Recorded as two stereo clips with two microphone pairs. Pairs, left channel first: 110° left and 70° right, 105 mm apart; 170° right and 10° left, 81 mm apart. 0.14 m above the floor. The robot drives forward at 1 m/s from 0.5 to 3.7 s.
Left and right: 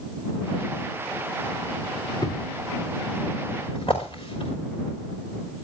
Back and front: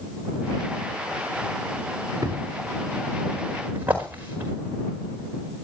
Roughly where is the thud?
Ahead left.